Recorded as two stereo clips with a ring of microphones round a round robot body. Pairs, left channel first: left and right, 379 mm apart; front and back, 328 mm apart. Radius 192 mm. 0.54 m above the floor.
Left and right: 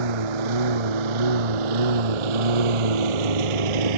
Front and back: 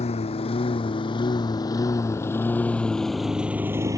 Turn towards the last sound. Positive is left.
turn(degrees=-100)